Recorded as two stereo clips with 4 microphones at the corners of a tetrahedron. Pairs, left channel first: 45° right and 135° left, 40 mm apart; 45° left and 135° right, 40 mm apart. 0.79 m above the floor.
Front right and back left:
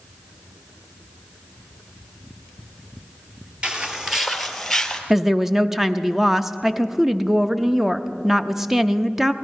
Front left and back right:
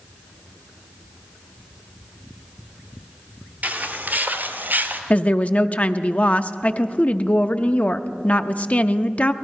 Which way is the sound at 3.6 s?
165° right.